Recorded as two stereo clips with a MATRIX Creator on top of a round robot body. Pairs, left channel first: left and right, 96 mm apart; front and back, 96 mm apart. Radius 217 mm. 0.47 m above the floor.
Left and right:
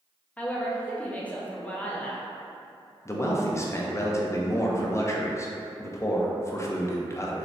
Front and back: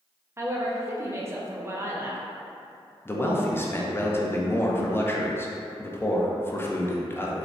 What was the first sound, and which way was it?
A woman speaking, 150° left.